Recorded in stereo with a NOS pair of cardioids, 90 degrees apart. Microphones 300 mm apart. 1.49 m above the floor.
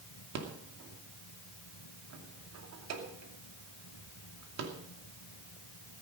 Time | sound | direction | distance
0.3 | a rattle | 65° right | 2.5 m